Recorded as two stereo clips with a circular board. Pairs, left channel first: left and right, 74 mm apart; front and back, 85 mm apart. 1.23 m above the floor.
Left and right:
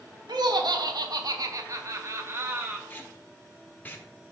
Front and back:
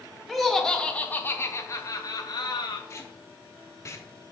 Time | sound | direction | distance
0.3 | laughter | 90° right | 1.4 m
2.9 | tape being pulled | 35° left | 1.1 m